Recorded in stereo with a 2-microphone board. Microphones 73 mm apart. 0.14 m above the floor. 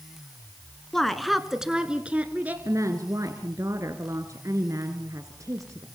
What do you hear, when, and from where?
0.9 s a woman speaking: 5° left (ahead or behind), 1.5 m; by 2.5 s 25° right (ahead or behind), 1.8 m
2.6 s a woman speaking: 50° right (ahead or behind), 1.9 m